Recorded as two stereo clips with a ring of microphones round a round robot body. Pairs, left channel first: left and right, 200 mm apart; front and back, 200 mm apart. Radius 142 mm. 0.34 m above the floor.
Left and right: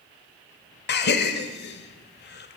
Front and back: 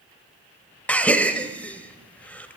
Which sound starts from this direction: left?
A gasp, at 0.9 s.